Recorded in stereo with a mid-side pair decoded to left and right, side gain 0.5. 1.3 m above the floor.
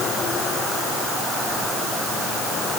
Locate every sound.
Only background noise.